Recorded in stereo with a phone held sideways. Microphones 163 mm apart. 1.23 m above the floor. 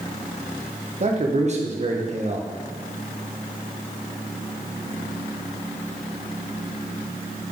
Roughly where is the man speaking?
Right.